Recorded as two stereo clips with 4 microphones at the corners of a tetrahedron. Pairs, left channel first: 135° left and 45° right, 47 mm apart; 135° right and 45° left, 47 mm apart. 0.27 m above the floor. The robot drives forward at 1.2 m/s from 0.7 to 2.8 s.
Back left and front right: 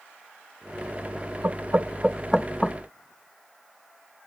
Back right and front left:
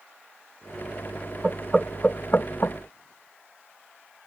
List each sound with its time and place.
1.4 s knocking: 35° right; by 2.8 s 155° right